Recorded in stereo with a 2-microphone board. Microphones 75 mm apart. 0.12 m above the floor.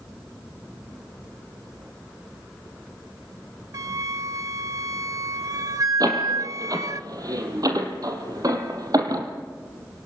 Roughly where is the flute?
Right.